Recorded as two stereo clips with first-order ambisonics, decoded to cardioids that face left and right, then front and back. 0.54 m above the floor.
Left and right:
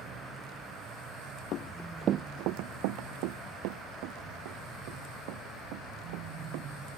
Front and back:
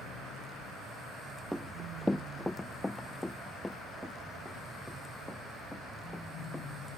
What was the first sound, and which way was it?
Running footsteps, 90° left.